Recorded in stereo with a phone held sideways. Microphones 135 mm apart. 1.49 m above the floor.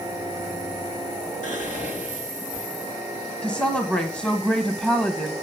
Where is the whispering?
65° left (ahead or behind), 2.5 m.